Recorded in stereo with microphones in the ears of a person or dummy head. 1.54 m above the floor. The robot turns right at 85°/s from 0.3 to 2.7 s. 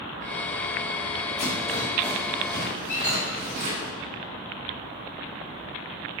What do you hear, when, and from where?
1.4 s a rattle: 40° left (ahead or behind), 1.7 m; by 3.9 s 55° right (ahead or behind), 1.7 m
2.9 s a squeak: 10° left (ahead or behind), 1.2 m